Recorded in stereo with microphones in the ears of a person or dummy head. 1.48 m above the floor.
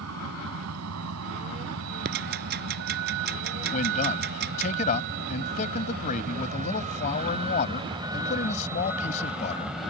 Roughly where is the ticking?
Right.